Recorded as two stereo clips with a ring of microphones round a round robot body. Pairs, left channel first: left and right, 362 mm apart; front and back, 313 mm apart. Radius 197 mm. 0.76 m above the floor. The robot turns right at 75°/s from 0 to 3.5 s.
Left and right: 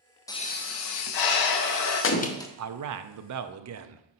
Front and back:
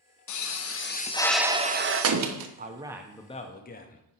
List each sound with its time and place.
0.3 s a pop: 10° left, 1.0 m; by 2.5 s 175° left, 1.0 m
2.6 s a man speaking: 125° right, 0.8 m; by 4.0 s 55° right, 0.8 m